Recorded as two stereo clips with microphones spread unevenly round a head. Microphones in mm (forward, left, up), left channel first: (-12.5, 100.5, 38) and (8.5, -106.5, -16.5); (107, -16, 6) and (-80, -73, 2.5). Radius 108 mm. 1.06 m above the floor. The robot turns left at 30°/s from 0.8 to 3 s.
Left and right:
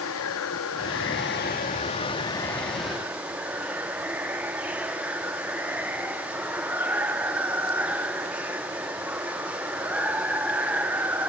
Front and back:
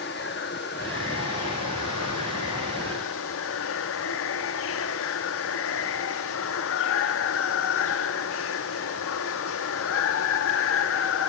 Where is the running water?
65° left, 1.5 m; by 11.3 s straight ahead, 1.5 m.